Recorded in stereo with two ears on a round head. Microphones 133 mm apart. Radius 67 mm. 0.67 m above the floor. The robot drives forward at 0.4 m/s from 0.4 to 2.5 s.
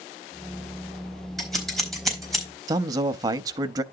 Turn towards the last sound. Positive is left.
turn(degrees=-25)  # may be behind; listen again after turning